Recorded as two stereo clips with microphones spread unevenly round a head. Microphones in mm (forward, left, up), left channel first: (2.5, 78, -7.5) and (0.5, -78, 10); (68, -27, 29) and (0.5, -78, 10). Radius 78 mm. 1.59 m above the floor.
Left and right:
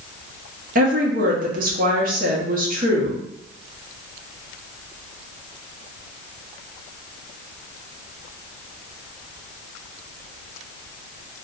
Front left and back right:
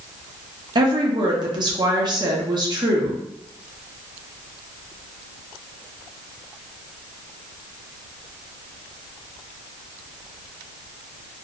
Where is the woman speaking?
105° right, 0.8 m.